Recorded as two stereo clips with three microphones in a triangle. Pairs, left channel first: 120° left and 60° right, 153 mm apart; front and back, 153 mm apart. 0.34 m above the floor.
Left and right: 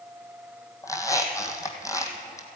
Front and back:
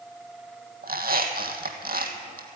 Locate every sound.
0.8 s a squeak: 170° right, 1.5 m